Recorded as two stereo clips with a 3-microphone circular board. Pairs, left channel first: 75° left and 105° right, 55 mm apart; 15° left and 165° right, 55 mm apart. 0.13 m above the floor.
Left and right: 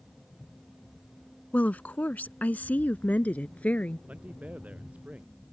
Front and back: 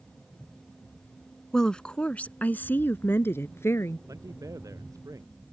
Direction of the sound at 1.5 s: 85° left.